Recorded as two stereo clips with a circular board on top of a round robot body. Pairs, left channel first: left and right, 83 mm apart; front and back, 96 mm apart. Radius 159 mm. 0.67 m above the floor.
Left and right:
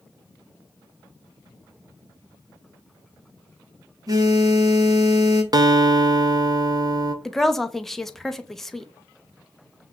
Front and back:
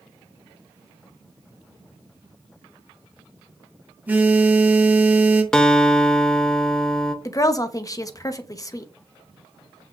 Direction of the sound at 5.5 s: 80° right.